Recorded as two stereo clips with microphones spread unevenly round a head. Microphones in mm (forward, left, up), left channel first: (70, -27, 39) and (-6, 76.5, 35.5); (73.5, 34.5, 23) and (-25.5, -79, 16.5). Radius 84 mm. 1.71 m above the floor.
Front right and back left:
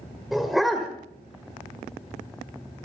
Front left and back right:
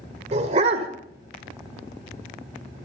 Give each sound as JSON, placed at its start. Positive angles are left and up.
{"t": 0.3, "sound": "a dog barking", "azimuth_deg": -140, "distance_m": 1.7}